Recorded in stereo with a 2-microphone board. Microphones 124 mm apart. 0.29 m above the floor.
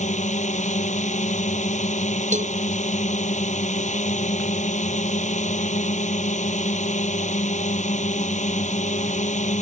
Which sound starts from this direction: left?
A drone, at 0.0 s.